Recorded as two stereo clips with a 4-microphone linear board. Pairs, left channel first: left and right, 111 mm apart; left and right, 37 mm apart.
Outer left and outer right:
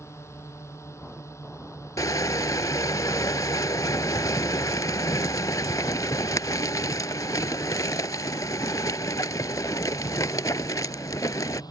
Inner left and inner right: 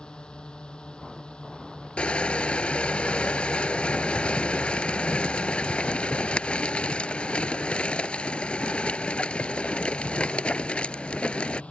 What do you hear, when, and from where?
0.0 s a drone: 25° left (ahead or behind); by 11.7 s 35° left (ahead or behind)
2.0 s crushing: 30° left (ahead or behind)